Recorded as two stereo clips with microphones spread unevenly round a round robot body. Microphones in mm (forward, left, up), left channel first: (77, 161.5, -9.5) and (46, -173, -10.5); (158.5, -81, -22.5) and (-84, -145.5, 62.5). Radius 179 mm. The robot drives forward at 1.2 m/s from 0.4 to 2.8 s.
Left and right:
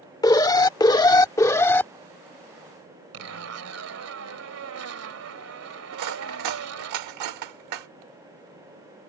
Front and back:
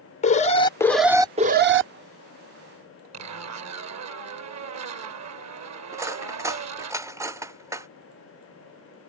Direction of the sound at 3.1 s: 140° right.